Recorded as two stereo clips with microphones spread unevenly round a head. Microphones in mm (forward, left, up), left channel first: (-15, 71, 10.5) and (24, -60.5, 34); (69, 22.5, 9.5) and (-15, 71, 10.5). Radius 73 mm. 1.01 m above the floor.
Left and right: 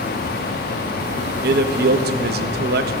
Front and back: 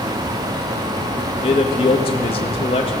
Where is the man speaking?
70° right, 1.1 m.